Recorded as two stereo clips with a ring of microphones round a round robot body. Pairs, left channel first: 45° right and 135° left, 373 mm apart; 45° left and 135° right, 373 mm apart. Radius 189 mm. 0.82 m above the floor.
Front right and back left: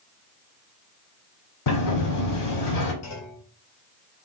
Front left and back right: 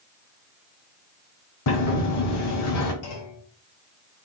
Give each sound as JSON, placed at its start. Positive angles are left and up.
{"t": 1.7, "sound": "a sliding door", "azimuth_deg": -5, "distance_m": 1.1}
{"t": 3.0, "sound": "a clunk", "azimuth_deg": 10, "distance_m": 1.0}